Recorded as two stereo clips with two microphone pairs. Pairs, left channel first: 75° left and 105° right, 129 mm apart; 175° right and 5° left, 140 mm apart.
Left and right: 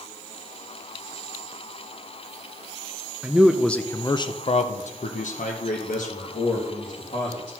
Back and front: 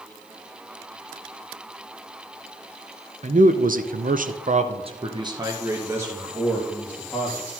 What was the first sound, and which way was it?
A man speaking, 25° right.